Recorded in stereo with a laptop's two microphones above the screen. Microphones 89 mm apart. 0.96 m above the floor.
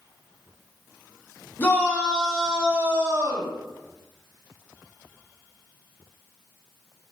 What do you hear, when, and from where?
1.6 s a shout: 25° left (ahead or behind), 1.3 m; by 3.5 s 50° right (ahead or behind), 1.1 m